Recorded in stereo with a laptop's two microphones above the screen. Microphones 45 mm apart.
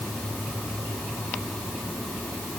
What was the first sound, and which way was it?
Only background noise.